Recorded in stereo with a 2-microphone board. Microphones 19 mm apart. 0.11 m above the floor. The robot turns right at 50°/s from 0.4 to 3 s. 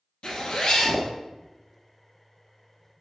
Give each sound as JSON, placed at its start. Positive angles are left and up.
{"t": 0.2, "sound": "a zipper", "azimuth_deg": 90, "distance_m": 1.0}